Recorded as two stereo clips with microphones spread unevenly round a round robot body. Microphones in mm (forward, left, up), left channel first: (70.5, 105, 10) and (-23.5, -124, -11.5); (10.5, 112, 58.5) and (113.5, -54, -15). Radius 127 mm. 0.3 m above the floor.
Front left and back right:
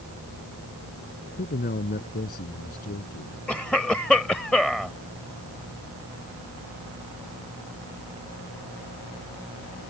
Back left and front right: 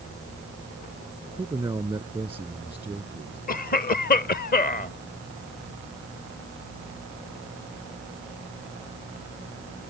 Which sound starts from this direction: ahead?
A man speaking, at 1.4 s.